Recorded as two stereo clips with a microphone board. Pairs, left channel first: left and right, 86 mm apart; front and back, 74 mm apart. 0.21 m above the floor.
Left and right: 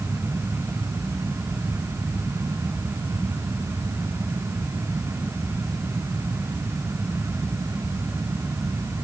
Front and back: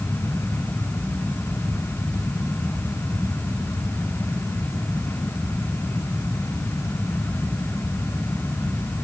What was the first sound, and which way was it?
Only background noise.